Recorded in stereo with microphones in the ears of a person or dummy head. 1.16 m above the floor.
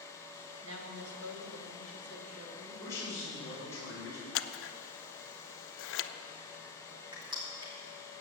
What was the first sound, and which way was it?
A woman speaking, 70° right (ahead or behind).